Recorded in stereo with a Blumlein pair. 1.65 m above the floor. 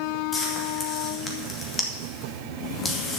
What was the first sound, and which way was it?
Frying, 20° left.